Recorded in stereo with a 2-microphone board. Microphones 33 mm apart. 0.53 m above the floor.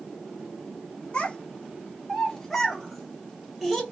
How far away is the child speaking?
About 0.7 m.